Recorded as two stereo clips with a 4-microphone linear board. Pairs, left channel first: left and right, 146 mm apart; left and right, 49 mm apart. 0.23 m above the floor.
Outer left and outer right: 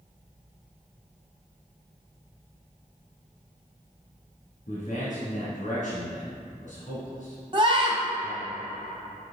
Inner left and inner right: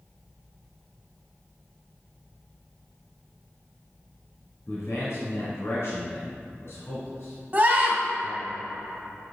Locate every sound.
4.7 s a man speaking: 60° left (ahead or behind), 2 m
7.5 s a scream: 35° right (ahead or behind), 1.6 m